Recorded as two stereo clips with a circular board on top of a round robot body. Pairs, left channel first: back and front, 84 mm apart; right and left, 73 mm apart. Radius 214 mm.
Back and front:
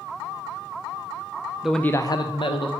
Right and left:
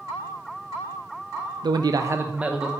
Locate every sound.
1.6 s a man speaking: 80° left, 0.6 m; by 2.7 s 170° left, 1.0 m